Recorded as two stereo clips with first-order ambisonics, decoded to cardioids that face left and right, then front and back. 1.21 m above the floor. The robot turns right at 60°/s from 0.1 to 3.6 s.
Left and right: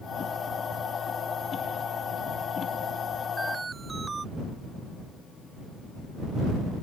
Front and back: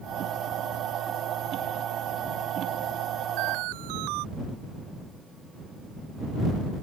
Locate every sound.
3.4 s an alarm: straight behind; by 4.2 s 165° right